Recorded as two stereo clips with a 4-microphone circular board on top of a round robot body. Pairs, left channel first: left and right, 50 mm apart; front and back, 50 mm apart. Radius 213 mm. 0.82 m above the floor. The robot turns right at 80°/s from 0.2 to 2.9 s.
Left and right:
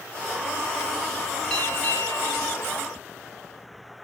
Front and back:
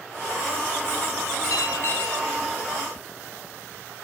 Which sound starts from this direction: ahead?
A bell, at 1.5 s.